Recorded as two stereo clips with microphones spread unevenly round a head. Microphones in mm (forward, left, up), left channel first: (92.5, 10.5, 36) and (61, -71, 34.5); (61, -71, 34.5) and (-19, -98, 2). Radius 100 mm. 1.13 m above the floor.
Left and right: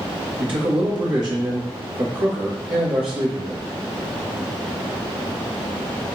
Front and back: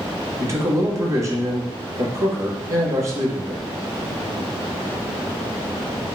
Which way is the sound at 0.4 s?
135° right.